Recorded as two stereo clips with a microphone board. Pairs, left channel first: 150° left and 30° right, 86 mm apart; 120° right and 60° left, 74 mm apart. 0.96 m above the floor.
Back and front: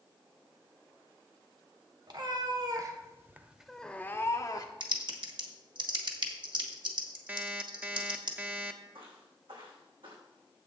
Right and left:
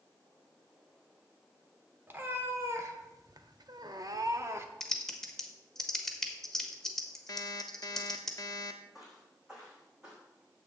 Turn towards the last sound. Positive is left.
turn(degrees=-20)